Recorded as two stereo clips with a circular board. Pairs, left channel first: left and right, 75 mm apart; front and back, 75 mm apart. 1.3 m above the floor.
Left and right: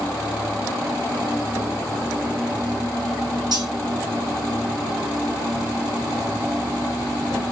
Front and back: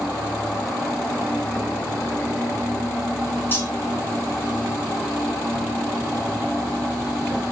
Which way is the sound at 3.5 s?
60° right.